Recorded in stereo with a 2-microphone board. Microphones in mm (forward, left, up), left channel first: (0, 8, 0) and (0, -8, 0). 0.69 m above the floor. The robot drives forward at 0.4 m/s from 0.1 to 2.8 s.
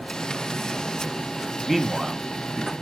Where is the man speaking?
5° right (ahead or behind), 1.0 m.